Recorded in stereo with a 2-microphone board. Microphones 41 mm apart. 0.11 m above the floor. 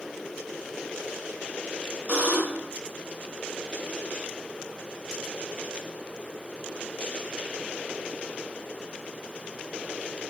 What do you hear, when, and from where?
2.1 s a buzzer: 35° right (ahead or behind), 3 m